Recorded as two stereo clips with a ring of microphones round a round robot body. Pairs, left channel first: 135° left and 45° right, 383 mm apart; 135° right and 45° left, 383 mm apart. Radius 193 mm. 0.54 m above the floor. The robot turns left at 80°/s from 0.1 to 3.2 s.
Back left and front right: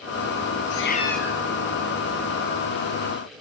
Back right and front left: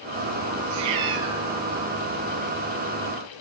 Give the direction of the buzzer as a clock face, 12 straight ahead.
I don't hear a buzzer.